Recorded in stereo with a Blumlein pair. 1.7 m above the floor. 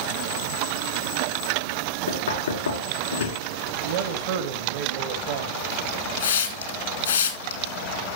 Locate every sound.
2.1 s knocking: 65° left, 2.0 m
3.8 s a man speaking: 50° right, 1.4 m
6.2 s a hiss: 65° left, 2.0 m